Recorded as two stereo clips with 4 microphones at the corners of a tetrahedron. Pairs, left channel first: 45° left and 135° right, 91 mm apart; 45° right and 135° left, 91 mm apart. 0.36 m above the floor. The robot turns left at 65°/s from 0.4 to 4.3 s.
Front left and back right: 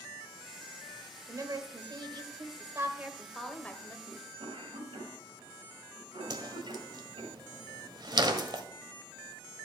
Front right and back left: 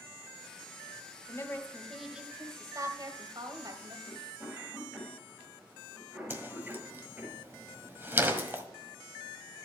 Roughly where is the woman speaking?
Right.